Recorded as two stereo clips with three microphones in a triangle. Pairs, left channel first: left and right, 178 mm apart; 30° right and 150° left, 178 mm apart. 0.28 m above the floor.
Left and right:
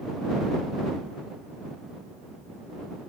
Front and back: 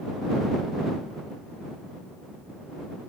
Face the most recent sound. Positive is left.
No sound to turn to.